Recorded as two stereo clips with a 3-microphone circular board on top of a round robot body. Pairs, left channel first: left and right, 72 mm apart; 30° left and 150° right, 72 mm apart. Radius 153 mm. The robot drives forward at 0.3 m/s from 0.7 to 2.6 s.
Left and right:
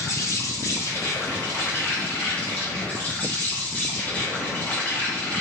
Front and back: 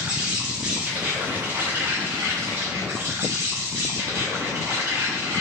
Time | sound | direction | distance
0.0 | an insect | 135° left | 0.8 m